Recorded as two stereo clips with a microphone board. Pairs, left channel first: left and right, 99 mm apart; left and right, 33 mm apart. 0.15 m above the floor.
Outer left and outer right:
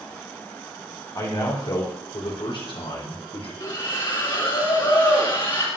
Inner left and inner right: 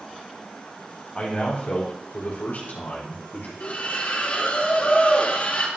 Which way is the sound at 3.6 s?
50° left (ahead or behind).